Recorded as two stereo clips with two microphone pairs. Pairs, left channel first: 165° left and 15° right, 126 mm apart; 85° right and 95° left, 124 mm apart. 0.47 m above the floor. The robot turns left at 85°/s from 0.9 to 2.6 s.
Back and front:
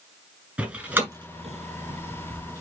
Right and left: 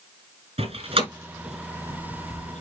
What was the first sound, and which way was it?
A door slam, 60° left.